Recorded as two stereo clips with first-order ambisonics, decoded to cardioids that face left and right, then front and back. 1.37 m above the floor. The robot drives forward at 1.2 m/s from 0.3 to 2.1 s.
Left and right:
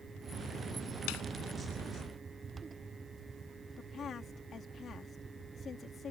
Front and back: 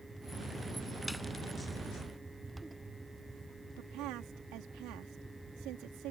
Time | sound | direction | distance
1.1 | a snare drum | 90° left | ?
3.8 | a woman speaking | 155° left | ?